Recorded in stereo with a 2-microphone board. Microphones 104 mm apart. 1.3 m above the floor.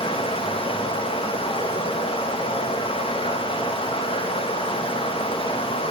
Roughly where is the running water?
Left.